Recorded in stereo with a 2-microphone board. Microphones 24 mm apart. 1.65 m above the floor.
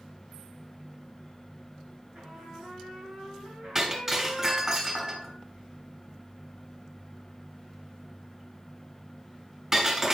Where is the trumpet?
45° right (ahead or behind), 6 m.